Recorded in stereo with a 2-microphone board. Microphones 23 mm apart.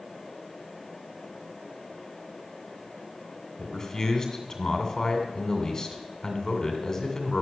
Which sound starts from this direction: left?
A man speaking, at 3.6 s.